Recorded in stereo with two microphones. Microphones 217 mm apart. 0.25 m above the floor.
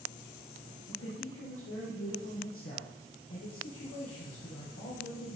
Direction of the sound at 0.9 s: 75° left (ahead or behind).